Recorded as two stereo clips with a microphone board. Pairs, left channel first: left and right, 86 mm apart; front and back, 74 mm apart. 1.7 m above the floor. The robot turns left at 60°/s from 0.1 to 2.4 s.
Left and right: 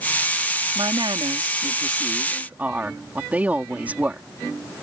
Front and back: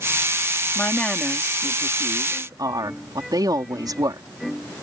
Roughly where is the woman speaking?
Ahead right.